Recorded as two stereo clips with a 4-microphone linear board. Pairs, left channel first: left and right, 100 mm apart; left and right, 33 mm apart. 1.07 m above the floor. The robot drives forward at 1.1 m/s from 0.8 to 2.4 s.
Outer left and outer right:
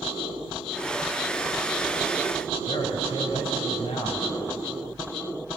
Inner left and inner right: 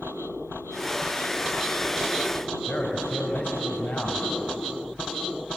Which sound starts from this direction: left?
A man speaking, at 2.7 s.